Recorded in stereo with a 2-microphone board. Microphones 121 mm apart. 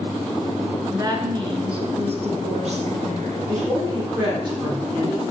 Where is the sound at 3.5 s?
40° right (ahead or behind), 5.5 m.